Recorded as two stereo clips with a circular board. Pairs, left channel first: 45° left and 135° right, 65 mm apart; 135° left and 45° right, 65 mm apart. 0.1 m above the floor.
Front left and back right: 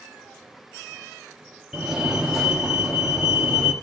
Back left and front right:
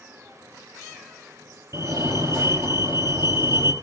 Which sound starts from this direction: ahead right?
A fire alarm, at 1.7 s.